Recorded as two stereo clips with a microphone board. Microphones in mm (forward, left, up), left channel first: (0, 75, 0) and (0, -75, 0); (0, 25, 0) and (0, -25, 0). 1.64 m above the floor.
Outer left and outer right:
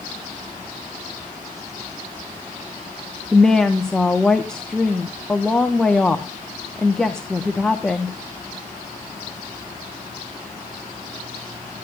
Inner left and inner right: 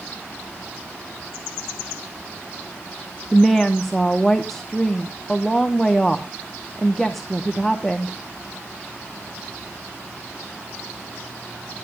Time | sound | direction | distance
3.3 | a woman speaking | 5° left (ahead or behind) | 1.0 m